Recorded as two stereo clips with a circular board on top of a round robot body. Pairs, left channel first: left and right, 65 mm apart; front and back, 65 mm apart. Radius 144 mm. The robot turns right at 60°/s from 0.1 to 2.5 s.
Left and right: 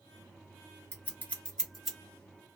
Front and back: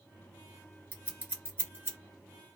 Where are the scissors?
125° left, 1.7 m; by 2.0 s 175° right, 1.7 m.